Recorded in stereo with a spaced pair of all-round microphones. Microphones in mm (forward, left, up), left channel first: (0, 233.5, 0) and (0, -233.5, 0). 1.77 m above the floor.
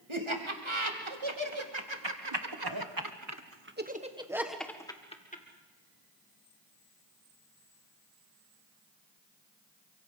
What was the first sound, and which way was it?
Laughter, 90° right.